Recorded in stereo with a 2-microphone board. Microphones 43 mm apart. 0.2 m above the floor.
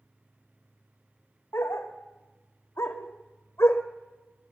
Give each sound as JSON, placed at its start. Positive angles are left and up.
{"t": 1.5, "sound": "a dog barking", "side_deg": 70, "distance_m": 3.0}